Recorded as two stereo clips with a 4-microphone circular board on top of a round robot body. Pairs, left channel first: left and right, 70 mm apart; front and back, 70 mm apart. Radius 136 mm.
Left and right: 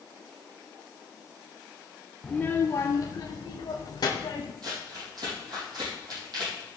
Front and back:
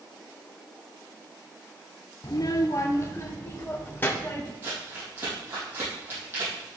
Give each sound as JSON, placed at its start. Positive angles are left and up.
{"t": 2.2, "sound": "a child speaking", "azimuth_deg": 10, "distance_m": 0.7}
{"t": 4.6, "sound": "crumpling", "azimuth_deg": -120, "distance_m": 7.0}